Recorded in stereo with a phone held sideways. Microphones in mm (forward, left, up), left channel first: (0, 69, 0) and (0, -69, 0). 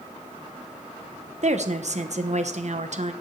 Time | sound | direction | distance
1.4 | a woman speaking | 55° right (ahead or behind) | 0.9 m